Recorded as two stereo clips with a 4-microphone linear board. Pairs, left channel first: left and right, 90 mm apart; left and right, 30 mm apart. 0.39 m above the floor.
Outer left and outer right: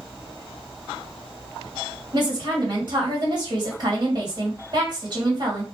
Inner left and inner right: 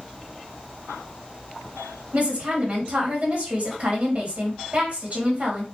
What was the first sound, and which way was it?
A woman speaking, 50° right (ahead or behind).